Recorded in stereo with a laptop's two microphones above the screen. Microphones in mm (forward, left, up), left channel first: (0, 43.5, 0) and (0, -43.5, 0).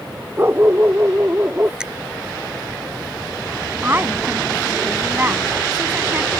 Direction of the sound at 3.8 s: 25° right (ahead or behind).